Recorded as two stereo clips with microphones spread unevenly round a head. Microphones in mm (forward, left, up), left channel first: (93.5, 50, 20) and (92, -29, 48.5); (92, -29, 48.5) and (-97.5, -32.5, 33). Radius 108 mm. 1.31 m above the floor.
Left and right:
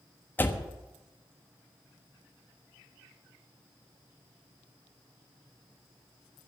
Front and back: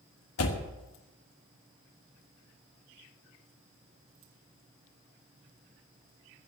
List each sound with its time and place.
0.4 s a door slam: 15° left, 1.3 m